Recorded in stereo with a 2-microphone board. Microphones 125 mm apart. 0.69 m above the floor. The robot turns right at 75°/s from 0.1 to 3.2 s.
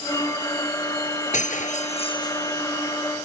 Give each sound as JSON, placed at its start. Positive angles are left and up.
{"t": 1.3, "sound": "breaking glass", "azimuth_deg": 75}